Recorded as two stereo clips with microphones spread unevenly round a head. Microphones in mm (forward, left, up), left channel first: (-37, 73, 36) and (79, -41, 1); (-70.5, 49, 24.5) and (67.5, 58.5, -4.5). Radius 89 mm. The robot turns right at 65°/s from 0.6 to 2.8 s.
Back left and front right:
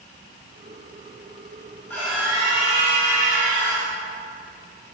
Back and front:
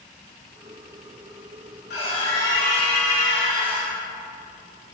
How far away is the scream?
About 5.5 m.